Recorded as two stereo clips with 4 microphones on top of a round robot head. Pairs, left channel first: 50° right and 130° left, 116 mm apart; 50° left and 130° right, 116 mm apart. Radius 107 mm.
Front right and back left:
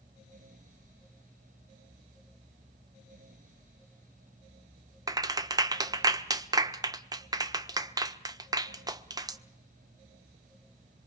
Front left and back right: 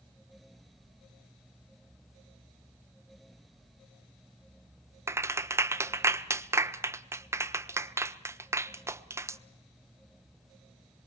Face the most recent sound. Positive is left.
turn(degrees=175)